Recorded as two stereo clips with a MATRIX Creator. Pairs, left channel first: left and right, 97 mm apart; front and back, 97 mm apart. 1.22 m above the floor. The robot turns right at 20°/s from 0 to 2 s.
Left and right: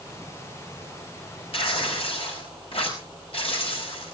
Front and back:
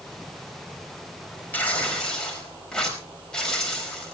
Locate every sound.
1.5 s tearing paper: 75° left, 5 m; by 4.1 s 85° left, 5 m